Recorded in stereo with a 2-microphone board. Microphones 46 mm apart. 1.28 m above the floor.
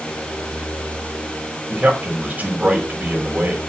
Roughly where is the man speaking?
Right.